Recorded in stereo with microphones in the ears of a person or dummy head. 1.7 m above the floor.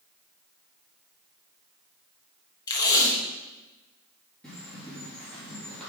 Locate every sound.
2.7 s tape being pulled: 20° left (ahead or behind), 1.1 m
4.4 s a bird: 5° left (ahead or behind), 2.5 m